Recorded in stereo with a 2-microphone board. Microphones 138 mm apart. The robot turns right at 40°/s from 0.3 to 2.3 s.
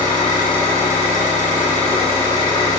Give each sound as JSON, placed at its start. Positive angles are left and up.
{"t": 0.0, "sound": "an engine running", "azimuth_deg": 65, "distance_m": 5.5}